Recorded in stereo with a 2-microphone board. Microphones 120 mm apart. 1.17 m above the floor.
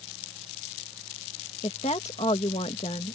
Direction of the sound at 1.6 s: 65° left (ahead or behind).